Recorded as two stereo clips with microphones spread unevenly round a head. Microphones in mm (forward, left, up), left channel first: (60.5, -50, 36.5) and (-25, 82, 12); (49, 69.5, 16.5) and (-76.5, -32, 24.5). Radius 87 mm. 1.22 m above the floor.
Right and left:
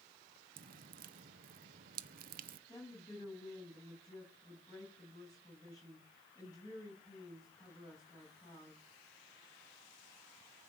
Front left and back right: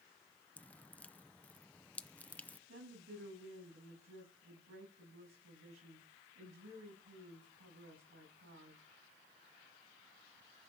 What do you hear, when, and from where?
0.6 s dripping: 120° left, 0.7 m
2.7 s a woman speaking: 125° right, 8.5 m